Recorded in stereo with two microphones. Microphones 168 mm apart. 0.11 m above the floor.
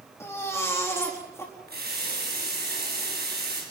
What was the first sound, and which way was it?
A baby crying, 15° left (ahead or behind).